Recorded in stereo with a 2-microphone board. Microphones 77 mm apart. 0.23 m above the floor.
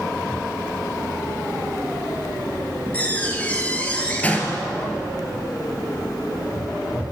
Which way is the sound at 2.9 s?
20° left (ahead or behind).